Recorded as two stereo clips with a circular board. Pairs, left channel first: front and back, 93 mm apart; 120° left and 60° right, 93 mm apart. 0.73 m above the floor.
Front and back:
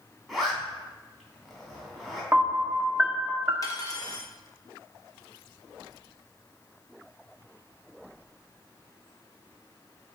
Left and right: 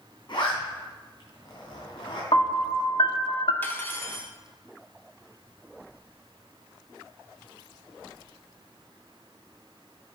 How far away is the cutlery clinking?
About 0.9 m.